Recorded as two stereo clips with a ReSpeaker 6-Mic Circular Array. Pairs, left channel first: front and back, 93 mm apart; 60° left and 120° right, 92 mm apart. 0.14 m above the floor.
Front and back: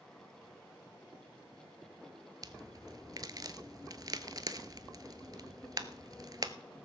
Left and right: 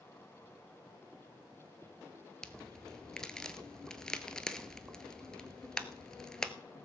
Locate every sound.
2.4 s a crack: 140° left, 0.8 m